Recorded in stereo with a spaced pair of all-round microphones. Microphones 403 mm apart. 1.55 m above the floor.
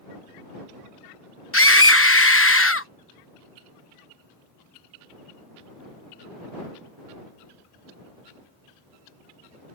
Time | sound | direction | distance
1.5 | a scream | 30° left (ahead or behind) | ?